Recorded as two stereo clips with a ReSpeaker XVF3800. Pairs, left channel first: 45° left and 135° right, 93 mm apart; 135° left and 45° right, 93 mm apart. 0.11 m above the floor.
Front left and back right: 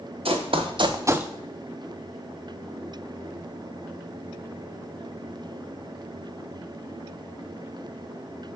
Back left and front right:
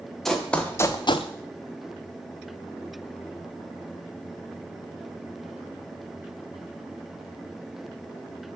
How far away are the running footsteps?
About 1.5 m.